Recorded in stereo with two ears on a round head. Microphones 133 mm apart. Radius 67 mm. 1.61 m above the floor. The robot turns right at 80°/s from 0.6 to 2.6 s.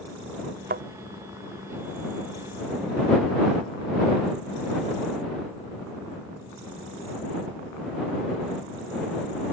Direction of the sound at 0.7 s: 60° right (ahead or behind).